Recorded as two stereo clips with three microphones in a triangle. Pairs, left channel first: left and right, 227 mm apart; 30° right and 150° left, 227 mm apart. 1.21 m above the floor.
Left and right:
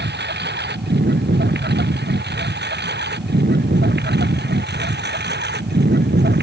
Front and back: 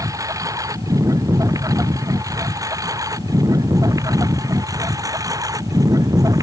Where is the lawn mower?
135° right.